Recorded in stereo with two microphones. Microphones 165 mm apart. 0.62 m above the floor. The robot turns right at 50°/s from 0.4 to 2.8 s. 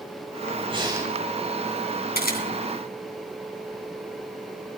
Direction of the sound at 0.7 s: 35° right (ahead or behind).